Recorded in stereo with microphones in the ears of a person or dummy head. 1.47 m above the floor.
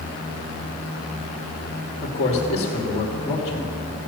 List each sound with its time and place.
2.0 s a man speaking: 35° left (ahead or behind), 2.5 m